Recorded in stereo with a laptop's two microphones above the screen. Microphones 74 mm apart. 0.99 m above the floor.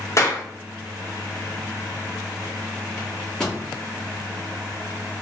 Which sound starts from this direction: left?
A clap, at 0.2 s.